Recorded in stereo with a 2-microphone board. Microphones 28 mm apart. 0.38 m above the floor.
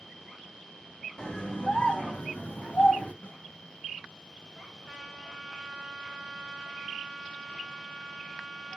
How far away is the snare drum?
About 0.7 m.